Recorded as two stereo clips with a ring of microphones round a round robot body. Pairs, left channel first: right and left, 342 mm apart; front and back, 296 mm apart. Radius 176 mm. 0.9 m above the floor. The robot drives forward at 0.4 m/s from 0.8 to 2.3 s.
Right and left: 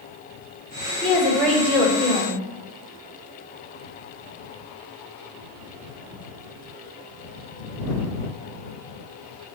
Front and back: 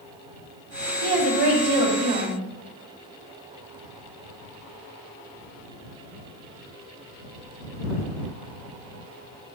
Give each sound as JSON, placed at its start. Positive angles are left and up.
{"t": 1.0, "sound": "a woman speaking", "azimuth_deg": -175, "distance_m": 3.0}